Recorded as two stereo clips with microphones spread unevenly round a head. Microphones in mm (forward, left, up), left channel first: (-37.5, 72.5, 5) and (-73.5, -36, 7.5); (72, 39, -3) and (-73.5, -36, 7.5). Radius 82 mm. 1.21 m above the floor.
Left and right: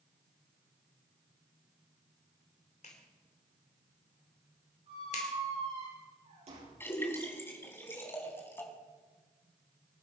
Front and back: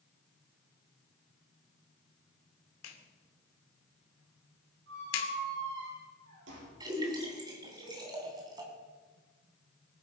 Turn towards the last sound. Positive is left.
turn(degrees=140)